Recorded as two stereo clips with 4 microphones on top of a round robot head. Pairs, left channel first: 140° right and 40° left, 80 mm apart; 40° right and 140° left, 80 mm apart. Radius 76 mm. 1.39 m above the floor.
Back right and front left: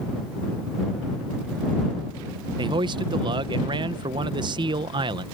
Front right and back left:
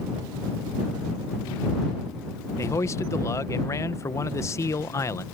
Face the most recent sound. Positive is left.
turn(degrees=15)